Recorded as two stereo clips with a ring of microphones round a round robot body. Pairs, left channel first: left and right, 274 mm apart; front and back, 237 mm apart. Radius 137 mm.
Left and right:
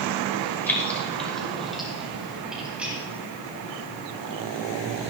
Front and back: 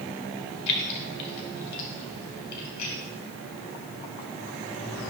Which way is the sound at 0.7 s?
5° left.